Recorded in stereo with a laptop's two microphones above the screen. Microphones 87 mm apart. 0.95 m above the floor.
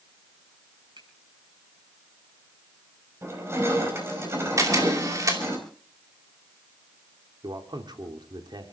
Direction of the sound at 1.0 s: 75° right (ahead or behind).